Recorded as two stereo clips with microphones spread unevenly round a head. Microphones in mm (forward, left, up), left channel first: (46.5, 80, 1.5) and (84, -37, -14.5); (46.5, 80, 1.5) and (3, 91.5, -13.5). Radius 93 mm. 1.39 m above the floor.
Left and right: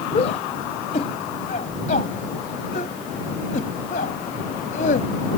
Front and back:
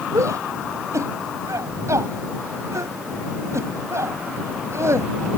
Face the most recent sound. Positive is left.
turn(degrees=150)